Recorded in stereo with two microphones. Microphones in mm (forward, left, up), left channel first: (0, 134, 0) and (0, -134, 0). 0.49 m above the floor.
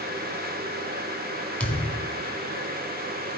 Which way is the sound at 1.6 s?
5° left (ahead or behind).